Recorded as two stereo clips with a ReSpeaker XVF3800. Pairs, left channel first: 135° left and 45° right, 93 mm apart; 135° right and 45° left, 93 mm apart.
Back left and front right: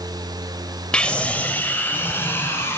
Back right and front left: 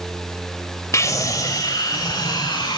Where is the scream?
155° right, 1.4 m; by 2.8 s 165° right, 2.5 m.